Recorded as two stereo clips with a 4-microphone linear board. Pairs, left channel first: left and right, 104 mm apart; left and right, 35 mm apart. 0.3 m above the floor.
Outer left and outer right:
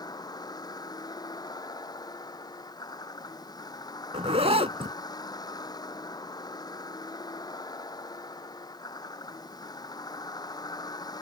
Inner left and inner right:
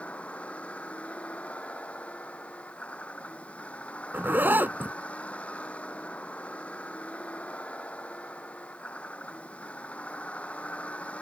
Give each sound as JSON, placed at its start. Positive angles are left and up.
{"t": 0.0, "sound": "a vehicle", "side_deg": 40}
{"t": 4.1, "sound": "a zipper", "side_deg": -75}